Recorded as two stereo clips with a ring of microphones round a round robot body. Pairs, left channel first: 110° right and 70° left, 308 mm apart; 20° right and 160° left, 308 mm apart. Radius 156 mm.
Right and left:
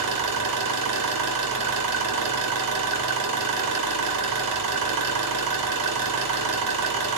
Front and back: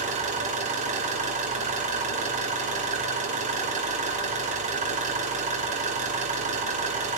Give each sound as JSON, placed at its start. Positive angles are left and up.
{"t": 0.0, "sound": "an engine running", "azimuth_deg": 90, "distance_m": 3.5}